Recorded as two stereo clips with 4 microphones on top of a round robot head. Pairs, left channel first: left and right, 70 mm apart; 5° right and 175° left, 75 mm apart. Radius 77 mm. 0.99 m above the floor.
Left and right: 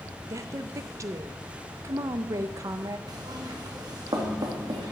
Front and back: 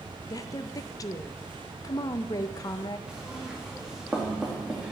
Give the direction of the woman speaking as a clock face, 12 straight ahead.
1 o'clock.